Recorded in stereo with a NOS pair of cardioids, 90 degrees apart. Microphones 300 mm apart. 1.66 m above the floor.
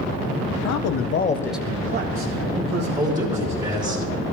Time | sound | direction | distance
0.5 | a man speaking | 70° left | 1.2 m
3.0 | a man speaking | 20° right | 3.5 m